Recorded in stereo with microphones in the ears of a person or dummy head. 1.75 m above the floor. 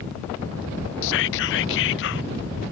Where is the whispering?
70° left (ahead or behind).